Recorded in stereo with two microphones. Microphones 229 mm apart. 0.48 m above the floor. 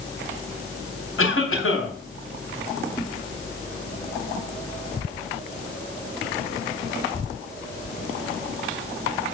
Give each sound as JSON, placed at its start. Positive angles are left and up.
{"t": 1.2, "sound": "a cough", "side_deg": 65, "distance_m": 3.0}